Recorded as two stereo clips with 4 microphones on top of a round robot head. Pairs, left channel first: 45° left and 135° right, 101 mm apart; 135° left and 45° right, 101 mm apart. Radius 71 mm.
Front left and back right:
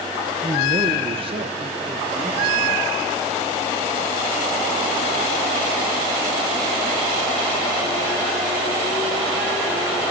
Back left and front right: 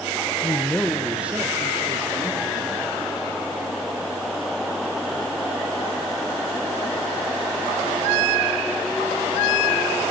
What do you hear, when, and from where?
0.4 s a man speaking: 175° right, 1.0 m; by 2.8 s 95° right, 2.5 m